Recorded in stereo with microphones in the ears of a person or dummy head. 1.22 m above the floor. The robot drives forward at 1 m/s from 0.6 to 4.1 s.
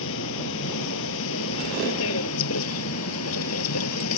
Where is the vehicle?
70° left (ahead or behind); by 4.2 s 80° left.